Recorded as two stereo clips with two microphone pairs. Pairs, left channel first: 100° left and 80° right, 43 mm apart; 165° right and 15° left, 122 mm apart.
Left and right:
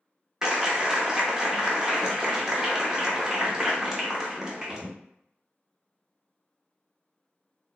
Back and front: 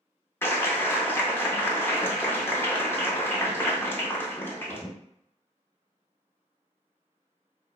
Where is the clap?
135° right, 0.6 m.